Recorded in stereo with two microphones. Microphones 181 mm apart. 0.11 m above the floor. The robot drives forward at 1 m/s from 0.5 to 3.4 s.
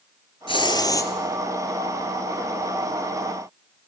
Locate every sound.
0.5 s a hiss: 30° left (ahead or behind), 0.6 m; by 1.1 s 15° left (ahead or behind), 1.1 m